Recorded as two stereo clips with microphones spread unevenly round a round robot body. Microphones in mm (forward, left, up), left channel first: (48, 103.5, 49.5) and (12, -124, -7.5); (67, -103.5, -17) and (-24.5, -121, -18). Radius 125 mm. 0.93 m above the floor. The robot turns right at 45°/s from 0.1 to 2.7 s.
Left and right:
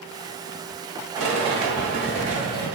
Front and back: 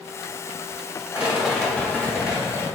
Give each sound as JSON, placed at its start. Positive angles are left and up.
{"t": 1.1, "sound": "a rattle", "azimuth_deg": -100, "distance_m": 1.6}